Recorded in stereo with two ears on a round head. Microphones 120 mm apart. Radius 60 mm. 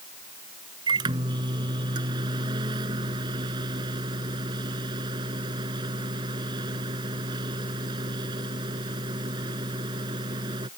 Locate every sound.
0.9 s a microwave: 35° right (ahead or behind)